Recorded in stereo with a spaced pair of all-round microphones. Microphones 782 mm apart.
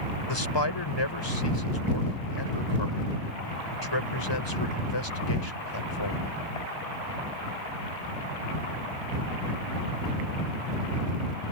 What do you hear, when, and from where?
0.3 s a man speaking: 30° left (ahead or behind)